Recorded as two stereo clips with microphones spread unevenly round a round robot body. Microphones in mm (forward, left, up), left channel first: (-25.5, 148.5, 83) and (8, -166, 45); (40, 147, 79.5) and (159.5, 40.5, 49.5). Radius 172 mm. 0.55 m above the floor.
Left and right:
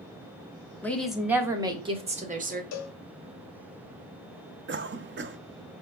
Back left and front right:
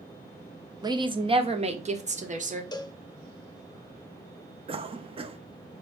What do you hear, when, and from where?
0.8 s a woman speaking: 10° left, 1.3 m; by 2.6 s 30° right, 1.7 m
2.7 s a cowbell: 70° left, 1.2 m
4.7 s a cough: 55° right, 0.8 m